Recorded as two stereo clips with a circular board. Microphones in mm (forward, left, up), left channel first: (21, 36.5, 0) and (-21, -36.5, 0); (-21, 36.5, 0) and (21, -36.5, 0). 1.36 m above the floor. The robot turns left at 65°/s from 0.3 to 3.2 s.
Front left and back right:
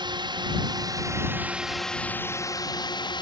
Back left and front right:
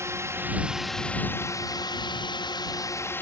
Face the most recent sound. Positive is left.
turn(degrees=60)